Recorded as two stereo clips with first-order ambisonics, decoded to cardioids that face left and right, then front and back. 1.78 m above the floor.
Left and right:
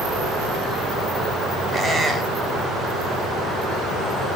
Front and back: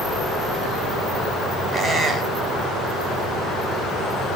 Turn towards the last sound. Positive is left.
turn(degrees=-150)